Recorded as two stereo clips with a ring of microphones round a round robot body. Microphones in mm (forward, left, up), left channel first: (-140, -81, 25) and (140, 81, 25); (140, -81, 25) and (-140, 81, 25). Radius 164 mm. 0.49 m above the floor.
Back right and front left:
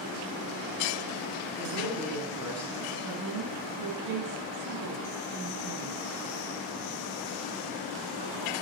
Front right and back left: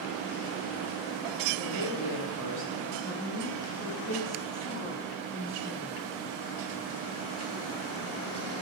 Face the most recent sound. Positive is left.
turn(degrees=55)